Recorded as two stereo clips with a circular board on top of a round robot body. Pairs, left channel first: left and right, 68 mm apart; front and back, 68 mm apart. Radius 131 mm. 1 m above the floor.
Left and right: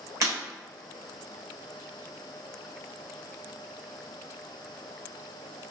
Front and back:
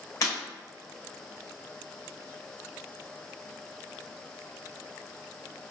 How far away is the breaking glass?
About 1.9 m.